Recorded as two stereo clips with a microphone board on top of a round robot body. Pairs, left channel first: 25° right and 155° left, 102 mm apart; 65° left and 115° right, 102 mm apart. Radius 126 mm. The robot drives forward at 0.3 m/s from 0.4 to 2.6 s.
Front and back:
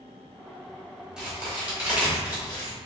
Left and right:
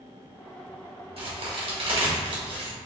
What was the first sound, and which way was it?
A crack, 120° right.